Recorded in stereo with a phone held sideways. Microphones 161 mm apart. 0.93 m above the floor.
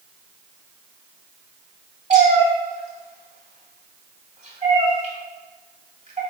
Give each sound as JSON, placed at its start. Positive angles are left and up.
{"t": 2.1, "sound": "a cat meowing", "side_deg": -45, "distance_m": 1.2}